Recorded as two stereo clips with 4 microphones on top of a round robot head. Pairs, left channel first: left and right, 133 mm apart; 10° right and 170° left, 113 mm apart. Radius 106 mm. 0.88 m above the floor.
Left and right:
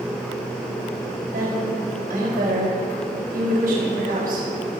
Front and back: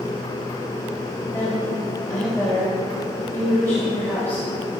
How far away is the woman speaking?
About 6 m.